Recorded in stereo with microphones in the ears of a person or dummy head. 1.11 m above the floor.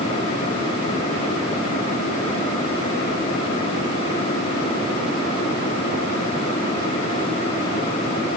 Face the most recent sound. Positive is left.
No sound to turn to.